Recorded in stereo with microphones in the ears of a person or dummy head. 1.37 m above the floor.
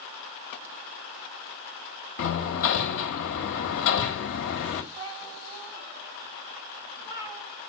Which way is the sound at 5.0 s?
15° right (ahead or behind).